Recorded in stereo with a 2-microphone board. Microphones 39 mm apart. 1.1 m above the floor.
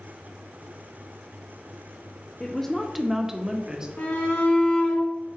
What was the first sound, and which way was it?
A woman speaking, 15° left (ahead or behind).